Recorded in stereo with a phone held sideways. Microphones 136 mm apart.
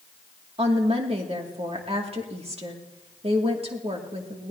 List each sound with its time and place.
0.6 s a woman speaking: 45° right (ahead or behind), 2.5 m